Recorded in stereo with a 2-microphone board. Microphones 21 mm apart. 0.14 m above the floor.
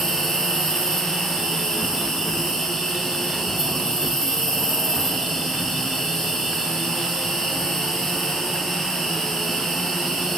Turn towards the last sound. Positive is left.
turn(degrees=20)  # may be behind; listen again after turning